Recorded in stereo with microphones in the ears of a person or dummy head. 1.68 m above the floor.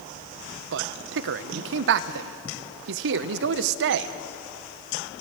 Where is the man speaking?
70° right (ahead or behind), 1.1 m.